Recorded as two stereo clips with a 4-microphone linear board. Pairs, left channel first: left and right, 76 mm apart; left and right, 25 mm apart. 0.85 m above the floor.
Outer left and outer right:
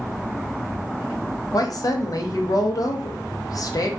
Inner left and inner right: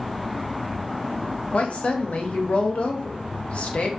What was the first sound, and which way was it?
A woman speaking, 55° left (ahead or behind).